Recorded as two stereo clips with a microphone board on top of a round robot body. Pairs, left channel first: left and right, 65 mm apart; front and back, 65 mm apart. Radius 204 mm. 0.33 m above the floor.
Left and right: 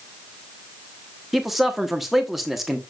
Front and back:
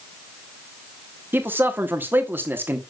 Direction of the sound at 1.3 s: 170° right.